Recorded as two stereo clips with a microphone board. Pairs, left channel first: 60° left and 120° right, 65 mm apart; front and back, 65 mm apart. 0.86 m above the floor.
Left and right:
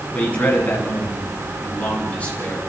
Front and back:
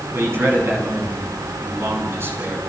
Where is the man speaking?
130° left, 9.5 m.